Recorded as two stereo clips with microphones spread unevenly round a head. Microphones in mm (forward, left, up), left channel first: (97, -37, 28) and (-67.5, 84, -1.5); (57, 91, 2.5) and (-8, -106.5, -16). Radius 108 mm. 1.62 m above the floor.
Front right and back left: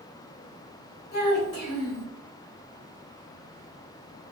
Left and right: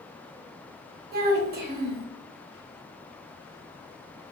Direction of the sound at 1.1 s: 60° right.